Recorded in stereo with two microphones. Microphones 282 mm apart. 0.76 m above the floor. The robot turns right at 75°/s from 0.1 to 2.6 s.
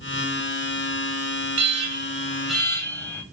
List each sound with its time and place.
1.6 s an alarm: 70° right, 3 m; by 3.2 s 10° left, 3 m